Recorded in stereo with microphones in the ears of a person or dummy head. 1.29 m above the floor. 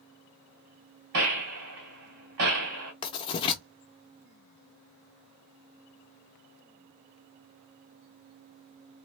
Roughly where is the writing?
Left.